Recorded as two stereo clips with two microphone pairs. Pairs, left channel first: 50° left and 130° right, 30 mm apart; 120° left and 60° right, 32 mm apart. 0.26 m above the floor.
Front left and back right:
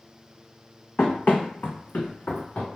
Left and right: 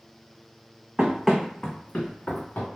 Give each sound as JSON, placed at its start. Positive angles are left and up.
{"t": 1.0, "sound": "running footsteps", "azimuth_deg": 5, "distance_m": 0.6}